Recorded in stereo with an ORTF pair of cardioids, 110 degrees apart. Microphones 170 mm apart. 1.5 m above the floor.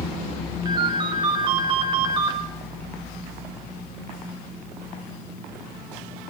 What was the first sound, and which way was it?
A ringtone, 25° right.